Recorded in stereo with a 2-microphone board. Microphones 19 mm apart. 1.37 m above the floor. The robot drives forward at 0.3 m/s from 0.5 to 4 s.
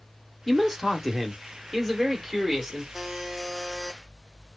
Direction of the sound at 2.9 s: 20° right (ahead or behind).